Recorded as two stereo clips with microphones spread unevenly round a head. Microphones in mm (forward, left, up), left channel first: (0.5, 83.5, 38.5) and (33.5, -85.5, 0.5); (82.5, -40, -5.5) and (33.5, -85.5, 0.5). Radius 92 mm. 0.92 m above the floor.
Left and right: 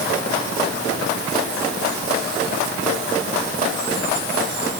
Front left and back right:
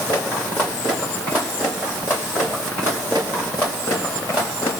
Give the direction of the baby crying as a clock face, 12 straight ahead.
I don't hear a baby crying.